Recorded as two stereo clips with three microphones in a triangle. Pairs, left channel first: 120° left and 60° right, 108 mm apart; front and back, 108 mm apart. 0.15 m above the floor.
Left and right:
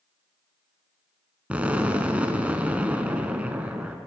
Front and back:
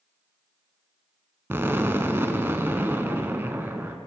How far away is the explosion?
About 0.6 m.